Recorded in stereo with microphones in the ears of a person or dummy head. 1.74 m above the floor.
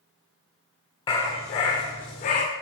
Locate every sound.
1.1 s a dog barking: 20° left (ahead or behind), 1.6 m; by 2.5 s 25° left (ahead or behind), 1.5 m